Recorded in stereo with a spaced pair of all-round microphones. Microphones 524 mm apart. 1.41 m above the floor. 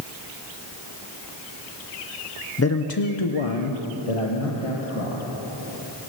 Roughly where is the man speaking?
Left.